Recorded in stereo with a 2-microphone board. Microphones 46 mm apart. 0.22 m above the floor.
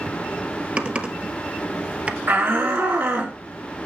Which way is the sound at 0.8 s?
25° right (ahead or behind).